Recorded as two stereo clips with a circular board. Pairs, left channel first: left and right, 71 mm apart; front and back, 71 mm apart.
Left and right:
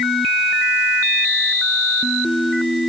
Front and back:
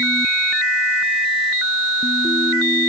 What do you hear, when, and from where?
Only background noise.